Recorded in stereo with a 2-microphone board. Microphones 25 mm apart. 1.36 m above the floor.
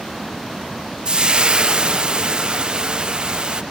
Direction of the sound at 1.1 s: 40° right (ahead or behind).